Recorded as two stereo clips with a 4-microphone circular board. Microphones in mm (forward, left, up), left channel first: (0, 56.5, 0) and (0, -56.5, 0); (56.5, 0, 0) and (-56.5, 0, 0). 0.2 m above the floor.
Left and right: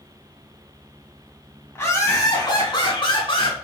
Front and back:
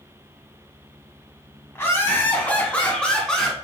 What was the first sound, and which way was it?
Laughter, 45° left.